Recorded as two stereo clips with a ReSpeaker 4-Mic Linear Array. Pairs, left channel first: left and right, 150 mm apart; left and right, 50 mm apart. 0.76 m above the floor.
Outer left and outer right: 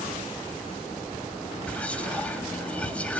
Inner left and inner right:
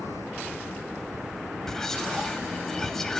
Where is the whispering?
10° left (ahead or behind), 1.6 m.